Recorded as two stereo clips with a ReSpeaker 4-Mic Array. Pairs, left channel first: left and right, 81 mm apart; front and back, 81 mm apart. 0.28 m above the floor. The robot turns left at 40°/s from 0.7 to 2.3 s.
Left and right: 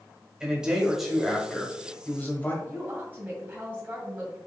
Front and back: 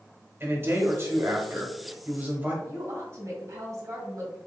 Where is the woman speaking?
155° right, 2.0 m.